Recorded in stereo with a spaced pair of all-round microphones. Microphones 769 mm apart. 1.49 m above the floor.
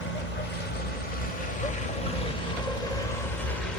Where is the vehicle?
75° left (ahead or behind); by 3.8 s 85° left.